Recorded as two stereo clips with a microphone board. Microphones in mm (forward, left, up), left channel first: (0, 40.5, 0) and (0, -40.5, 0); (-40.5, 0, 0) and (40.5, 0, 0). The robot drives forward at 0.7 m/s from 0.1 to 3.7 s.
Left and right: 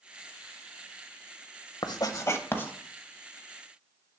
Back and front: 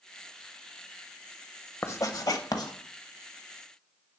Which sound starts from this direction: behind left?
Writing, at 1.8 s.